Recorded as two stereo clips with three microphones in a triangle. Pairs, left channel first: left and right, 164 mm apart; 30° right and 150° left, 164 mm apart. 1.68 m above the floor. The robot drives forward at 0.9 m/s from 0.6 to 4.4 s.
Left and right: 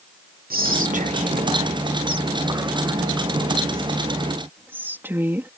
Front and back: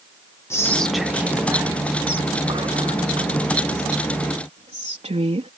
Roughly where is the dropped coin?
I don't hear a dropped coin.